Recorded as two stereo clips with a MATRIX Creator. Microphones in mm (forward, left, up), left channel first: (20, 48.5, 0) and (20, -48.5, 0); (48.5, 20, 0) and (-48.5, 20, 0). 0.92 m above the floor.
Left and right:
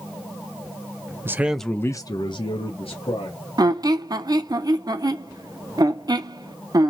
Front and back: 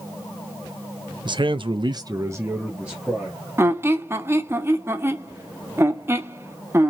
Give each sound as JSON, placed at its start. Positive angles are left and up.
{"t": 1.2, "sound": "a man speaking", "azimuth_deg": -155, "distance_m": 0.5}
{"t": 3.6, "sound": "a squeak", "azimuth_deg": -125, "distance_m": 0.5}